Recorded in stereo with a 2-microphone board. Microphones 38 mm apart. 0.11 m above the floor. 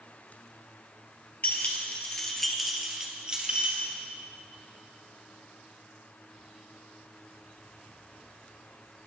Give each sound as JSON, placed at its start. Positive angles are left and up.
{"t": 1.4, "sound": "keys jangling", "side_deg": 50, "distance_m": 1.4}